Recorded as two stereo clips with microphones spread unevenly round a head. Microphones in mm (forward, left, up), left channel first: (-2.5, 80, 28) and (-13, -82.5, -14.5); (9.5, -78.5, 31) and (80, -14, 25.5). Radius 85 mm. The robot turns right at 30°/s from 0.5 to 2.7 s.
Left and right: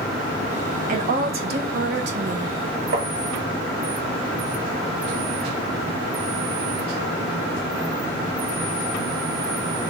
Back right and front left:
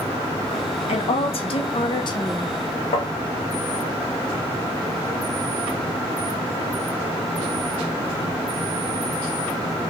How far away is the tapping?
About 1.0 m.